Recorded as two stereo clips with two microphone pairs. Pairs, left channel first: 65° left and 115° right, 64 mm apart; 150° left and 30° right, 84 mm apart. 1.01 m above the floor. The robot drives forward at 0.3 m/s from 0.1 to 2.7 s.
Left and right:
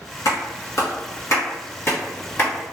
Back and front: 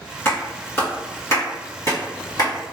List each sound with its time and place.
0.2 s a clap: 80° left, 1.3 m; by 2.7 s 115° left, 1.3 m